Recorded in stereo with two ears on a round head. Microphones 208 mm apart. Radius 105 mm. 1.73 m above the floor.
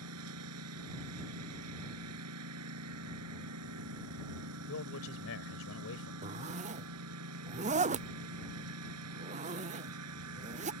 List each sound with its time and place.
0.0 s a lawn mower: 75° right (ahead or behind)
4.7 s a man speaking: 65° left (ahead or behind)
6.2 s a zipper: 30° right (ahead or behind)